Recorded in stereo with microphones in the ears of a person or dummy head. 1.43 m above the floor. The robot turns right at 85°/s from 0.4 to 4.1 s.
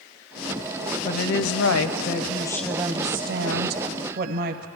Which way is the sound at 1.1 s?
45° left.